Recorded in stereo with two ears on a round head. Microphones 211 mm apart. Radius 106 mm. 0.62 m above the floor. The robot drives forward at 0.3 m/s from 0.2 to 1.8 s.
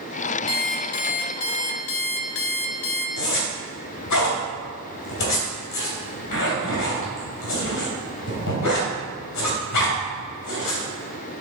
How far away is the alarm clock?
About 0.9 m.